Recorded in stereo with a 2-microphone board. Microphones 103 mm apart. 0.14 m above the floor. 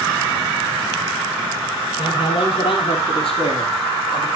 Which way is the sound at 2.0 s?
50° left (ahead or behind).